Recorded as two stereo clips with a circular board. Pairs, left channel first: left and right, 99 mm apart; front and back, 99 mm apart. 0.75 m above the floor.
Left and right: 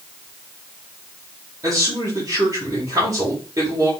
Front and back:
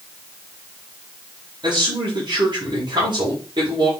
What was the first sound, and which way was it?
A man speaking, 140° right.